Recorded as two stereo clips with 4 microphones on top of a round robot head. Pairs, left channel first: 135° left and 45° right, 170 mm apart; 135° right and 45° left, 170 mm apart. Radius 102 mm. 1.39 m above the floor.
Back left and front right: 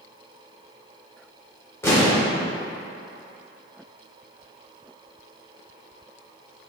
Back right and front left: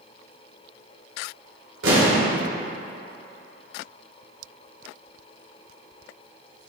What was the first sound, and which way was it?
An explosion, 60° left.